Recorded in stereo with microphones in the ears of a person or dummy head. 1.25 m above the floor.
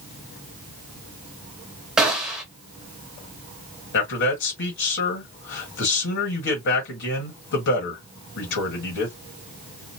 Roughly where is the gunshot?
Centre.